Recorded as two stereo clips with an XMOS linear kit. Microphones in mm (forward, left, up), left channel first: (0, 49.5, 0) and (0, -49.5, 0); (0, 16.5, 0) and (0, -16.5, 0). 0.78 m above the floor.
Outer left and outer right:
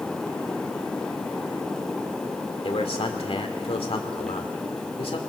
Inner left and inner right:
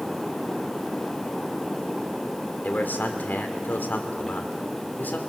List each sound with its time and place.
2.6 s a man speaking: 75° left (ahead or behind), 2 m